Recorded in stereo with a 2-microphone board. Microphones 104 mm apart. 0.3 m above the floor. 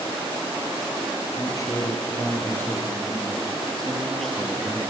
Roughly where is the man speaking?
Left.